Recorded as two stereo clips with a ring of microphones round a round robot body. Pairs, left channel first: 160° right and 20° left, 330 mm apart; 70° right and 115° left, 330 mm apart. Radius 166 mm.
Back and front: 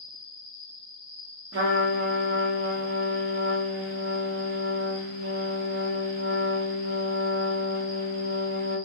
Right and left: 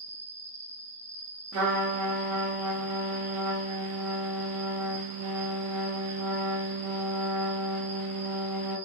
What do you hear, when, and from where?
0.0 s an insect: straight behind, 1.4 m
1.5 s a trumpet: 70° left, 0.8 m